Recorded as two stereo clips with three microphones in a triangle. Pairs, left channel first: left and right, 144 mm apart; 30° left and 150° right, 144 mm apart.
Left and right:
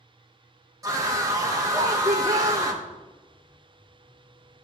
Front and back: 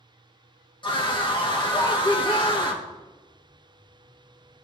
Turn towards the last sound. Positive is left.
turn(degrees=-25)